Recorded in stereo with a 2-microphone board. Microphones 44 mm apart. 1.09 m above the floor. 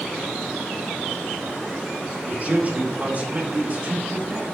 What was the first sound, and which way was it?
A man speaking, 35° right (ahead or behind).